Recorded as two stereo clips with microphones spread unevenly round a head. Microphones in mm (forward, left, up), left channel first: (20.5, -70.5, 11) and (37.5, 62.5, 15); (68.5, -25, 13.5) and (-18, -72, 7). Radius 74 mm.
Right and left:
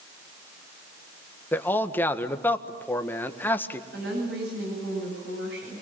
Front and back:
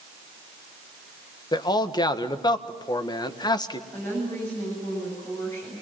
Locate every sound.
1.5 s a man speaking: 20° right, 1.7 m
3.9 s a woman speaking: 105° left, 9 m